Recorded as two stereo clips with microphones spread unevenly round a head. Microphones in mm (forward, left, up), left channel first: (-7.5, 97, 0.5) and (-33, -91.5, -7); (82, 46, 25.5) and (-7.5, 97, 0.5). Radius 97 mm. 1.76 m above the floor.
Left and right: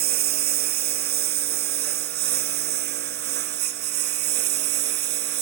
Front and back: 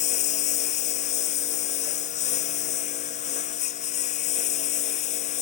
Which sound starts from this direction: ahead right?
A lawn mower, at 0.0 s.